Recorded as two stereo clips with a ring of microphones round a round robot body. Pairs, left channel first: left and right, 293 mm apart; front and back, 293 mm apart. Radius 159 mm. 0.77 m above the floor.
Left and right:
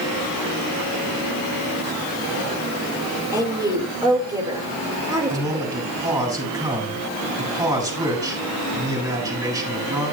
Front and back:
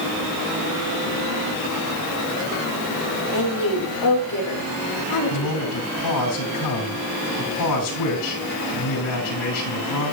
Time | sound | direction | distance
3.3 | a woman speaking | 15° right | 3 m
5.3 | a man speaking | 10° right | 5 m